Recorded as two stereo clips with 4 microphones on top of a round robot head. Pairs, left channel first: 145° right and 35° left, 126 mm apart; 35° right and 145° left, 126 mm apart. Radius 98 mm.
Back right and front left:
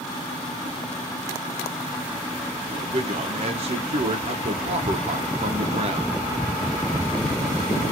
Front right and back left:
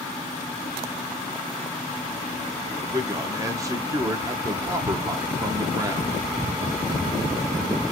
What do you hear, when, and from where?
2.7 s a man speaking: 80° left, 0.7 m